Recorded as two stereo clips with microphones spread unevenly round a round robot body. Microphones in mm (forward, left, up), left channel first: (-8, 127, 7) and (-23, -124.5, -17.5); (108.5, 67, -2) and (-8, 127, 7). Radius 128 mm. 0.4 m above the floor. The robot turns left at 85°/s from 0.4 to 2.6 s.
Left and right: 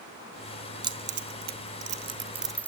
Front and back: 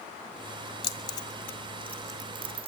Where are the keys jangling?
35° right, 0.9 m; by 2.7 s 175° left, 0.9 m.